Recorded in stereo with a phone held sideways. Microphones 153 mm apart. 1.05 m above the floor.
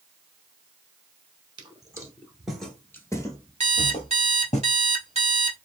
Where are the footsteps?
30° right (ahead or behind), 1.1 m; by 4.6 s 50° left (ahead or behind), 1.5 m.